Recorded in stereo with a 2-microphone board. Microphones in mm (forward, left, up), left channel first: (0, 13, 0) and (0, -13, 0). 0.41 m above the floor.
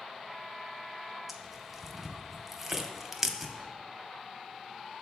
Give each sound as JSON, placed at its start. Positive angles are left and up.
{"t": 1.3, "sound": "tearing paper", "side_deg": -10, "distance_m": 0.7}